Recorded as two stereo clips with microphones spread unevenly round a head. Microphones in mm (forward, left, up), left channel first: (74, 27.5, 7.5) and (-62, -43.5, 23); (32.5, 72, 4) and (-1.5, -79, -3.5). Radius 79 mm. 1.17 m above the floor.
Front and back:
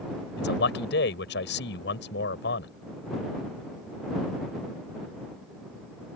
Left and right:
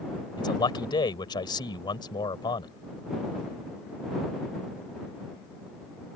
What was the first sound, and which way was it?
A man speaking, 15° left.